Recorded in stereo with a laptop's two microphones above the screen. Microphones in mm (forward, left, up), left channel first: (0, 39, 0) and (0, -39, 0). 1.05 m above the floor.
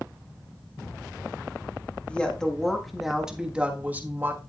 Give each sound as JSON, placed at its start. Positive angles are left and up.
{"t": 2.1, "sound": "a woman speaking", "side_deg": 15, "distance_m": 1.7}